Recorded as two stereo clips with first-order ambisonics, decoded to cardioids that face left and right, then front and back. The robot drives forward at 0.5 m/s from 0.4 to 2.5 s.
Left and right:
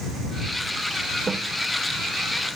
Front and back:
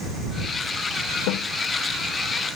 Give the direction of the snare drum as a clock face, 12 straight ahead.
12 o'clock.